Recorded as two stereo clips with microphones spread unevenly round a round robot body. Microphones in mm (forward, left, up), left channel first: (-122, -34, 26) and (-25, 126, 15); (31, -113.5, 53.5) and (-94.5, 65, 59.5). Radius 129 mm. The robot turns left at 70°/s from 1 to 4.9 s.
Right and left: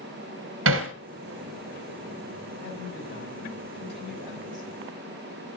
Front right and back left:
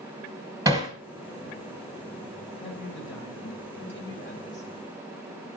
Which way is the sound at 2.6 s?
10° left.